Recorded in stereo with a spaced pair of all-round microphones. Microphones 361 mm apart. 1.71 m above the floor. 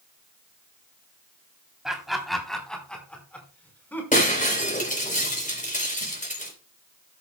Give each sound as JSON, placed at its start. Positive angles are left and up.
{"t": 1.9, "sound": "laughter", "side_deg": 0, "distance_m": 3.5}
{"t": 4.1, "sound": "breaking glass", "side_deg": 20, "distance_m": 4.0}